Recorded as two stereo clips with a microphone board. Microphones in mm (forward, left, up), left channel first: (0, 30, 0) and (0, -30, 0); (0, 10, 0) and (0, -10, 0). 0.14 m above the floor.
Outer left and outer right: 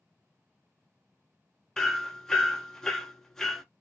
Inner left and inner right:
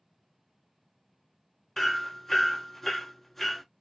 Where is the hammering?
5° left (ahead or behind), 0.7 m.